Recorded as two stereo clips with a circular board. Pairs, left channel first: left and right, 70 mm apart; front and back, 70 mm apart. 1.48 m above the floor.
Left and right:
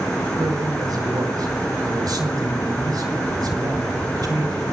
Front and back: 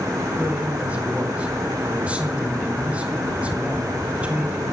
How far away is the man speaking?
About 4 m.